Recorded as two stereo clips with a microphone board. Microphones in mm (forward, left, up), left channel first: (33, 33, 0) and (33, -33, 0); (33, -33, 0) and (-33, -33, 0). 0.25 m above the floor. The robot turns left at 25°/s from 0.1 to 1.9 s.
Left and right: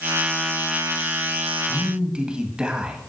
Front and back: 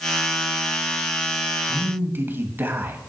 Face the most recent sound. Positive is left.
turn(degrees=-155)